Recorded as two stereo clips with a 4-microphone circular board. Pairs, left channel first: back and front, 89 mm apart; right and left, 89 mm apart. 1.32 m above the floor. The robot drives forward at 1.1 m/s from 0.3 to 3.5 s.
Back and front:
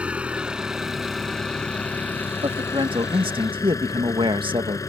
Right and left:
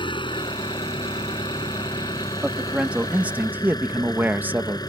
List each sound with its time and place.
0.0 s an engine running: 75° right; by 4.9 s 130° right
2.4 s a man speaking: 10° left; by 4.8 s 20° left